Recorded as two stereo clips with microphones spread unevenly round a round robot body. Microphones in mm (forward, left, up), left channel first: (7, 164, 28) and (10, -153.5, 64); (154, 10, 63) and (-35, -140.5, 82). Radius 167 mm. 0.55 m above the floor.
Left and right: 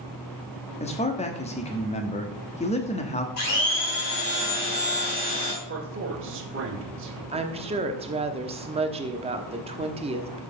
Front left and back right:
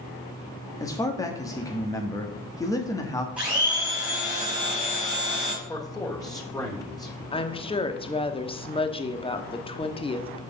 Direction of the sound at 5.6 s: 35° right.